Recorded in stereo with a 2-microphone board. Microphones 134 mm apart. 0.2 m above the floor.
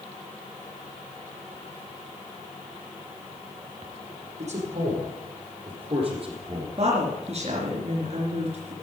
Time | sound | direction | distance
4.4 | a man speaking | 60° right (ahead or behind) | 7 m
6.8 | a woman speaking | 55° right (ahead or behind) | 3.5 m